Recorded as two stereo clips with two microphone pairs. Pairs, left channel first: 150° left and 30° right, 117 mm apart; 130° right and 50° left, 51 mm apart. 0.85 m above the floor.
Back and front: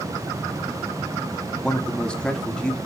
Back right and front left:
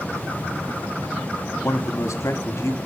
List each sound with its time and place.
1.6 s a man speaking: 130° right, 1.4 m